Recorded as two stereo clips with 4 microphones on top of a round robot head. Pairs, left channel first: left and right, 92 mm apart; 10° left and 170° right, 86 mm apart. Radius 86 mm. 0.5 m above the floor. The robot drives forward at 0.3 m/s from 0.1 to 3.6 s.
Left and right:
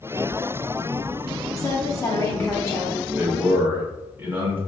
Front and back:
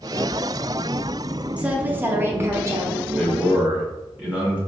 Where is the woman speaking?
120° left, 0.8 m; by 3.0 s 150° left, 1.0 m.